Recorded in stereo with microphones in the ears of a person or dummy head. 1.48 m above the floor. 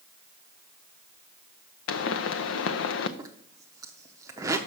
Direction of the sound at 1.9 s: 70° left (ahead or behind).